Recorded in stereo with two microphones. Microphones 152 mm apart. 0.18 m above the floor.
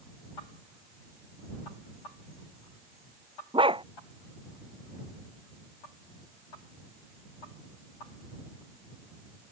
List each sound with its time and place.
3.5 s a dog barking: 35° right (ahead or behind)